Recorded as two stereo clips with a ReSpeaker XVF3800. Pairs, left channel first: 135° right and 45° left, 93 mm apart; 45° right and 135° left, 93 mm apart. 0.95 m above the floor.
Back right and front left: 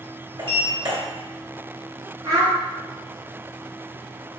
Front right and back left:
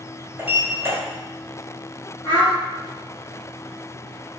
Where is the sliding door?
70° left, 1.7 m.